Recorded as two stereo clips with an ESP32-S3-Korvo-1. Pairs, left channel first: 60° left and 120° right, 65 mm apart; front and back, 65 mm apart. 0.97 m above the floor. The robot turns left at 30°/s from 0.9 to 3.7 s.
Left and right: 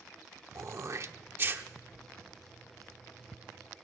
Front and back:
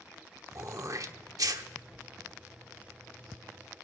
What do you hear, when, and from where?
0.6 s throat clearing: 155° right, 0.9 m; by 1.6 s 175° right, 0.9 m